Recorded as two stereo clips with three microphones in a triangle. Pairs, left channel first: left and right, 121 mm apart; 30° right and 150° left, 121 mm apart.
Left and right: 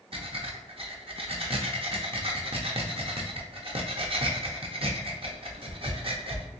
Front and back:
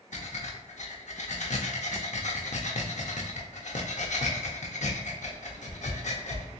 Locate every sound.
0.1 s breathing: 45° right, 0.7 m